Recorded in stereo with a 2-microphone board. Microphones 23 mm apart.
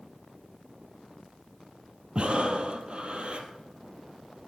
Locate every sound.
2.1 s breathing: 55° right (ahead or behind), 1.6 m